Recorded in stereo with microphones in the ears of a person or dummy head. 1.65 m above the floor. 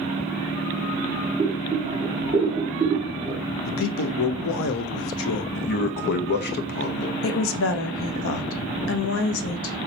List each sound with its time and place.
1.4 s boiling: 30° right (ahead or behind), 1.6 m
3.6 s a man speaking: 70° left (ahead or behind), 0.6 m
5.5 s a man speaking: 50° left (ahead or behind), 0.6 m
7.2 s a woman speaking: 70° left (ahead or behind), 0.7 m